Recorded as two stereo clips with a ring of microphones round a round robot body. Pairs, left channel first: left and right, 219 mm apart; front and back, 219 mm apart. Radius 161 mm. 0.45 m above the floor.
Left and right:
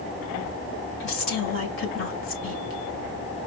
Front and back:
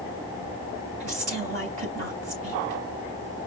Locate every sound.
1.0 s a woman speaking: 120° left, 2 m